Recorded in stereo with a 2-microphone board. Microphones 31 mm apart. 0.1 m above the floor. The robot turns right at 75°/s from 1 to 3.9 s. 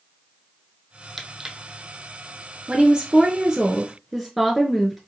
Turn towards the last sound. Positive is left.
turn(degrees=-10)  # may be behind; listen again after turning